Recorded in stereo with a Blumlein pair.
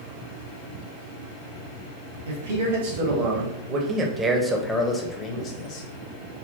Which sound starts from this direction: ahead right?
A man speaking, at 2.3 s.